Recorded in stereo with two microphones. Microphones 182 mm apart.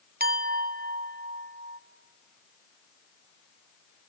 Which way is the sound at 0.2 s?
55° right (ahead or behind).